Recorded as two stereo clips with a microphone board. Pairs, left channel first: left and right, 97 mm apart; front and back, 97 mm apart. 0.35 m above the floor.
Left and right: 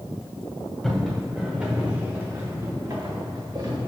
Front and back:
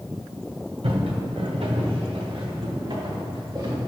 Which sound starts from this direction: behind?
Footsteps, at 0.8 s.